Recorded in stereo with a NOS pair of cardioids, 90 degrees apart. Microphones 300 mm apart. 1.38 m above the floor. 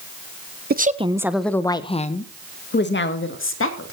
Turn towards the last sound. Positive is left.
turn(degrees=45)